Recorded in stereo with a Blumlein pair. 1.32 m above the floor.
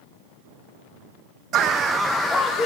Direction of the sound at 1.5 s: 30° right.